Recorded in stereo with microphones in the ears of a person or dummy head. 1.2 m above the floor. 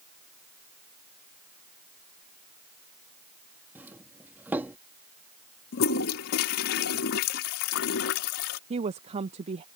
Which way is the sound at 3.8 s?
10° right (ahead or behind).